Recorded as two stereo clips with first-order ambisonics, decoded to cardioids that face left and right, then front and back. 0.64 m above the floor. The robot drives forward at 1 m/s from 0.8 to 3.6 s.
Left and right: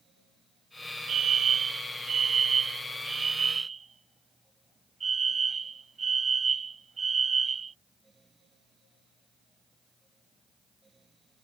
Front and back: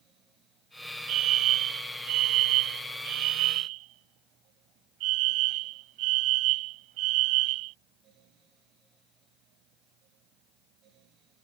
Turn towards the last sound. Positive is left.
turn(degrees=-160)